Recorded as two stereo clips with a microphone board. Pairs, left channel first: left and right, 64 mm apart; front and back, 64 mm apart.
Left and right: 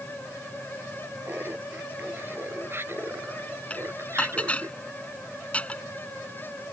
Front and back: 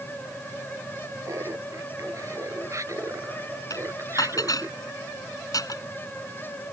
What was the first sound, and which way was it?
Laughter, 145° right.